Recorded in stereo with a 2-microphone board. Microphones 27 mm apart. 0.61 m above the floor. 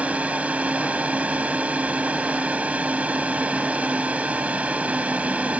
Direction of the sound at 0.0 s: 65° right (ahead or behind).